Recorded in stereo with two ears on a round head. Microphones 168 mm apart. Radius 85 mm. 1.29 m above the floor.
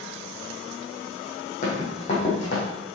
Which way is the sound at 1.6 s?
40° left (ahead or behind).